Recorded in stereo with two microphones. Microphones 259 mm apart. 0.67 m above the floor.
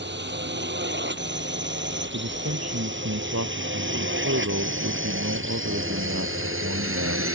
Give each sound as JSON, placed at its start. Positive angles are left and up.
{"t": 0.0, "sound": "a drone", "side_deg": -45}
{"t": 2.1, "sound": "a man speaking", "side_deg": -70}